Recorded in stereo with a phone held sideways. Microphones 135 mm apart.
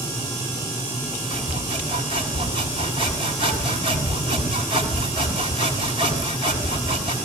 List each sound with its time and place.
1.3 s sawing: 45° right (ahead or behind), 6 m